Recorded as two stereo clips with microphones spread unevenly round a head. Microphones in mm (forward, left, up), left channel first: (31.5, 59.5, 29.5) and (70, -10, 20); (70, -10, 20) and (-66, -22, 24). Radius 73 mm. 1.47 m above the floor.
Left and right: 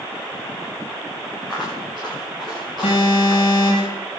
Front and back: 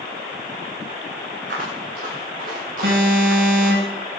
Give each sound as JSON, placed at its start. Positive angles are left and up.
{"t": 1.5, "sound": "footsteps", "azimuth_deg": -150, "distance_m": 8.5}
{"t": 2.8, "sound": "an alarm", "azimuth_deg": 165, "distance_m": 8.5}